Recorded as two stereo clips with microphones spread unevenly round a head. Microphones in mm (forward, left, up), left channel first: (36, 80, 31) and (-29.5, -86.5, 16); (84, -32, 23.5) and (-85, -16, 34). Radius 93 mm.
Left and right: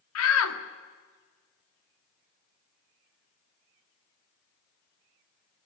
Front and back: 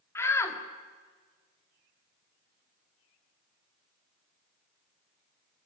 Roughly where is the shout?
Left.